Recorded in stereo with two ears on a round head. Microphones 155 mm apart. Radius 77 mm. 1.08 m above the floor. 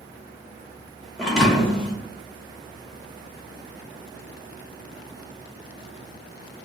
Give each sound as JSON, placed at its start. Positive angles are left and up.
{"t": 1.2, "sound": "a thud", "side_deg": 5, "distance_m": 0.8}